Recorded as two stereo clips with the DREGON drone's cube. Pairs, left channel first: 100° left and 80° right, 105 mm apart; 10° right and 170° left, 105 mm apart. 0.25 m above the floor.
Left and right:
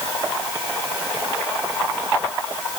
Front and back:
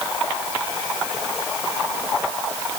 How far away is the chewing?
No chewing in this recording.